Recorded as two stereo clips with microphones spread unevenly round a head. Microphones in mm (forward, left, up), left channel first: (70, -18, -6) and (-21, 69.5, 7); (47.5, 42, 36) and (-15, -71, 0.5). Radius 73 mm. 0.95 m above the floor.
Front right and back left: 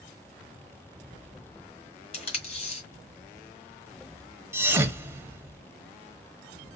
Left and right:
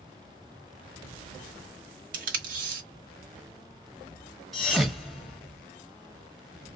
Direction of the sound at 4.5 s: 110° left.